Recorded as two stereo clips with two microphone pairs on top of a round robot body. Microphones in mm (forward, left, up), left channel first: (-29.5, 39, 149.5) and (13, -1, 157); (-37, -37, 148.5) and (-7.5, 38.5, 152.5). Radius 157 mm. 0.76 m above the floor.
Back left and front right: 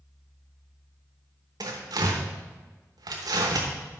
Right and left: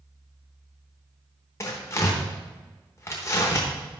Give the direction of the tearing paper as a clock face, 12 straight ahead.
2 o'clock.